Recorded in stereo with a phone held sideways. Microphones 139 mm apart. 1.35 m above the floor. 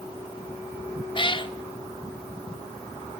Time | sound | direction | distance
1.1 | a cat meowing | 35° left (ahead or behind) | 0.6 m